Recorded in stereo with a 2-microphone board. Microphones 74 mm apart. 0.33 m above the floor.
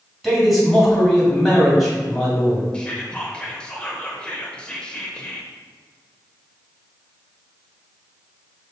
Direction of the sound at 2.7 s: 15° left (ahead or behind).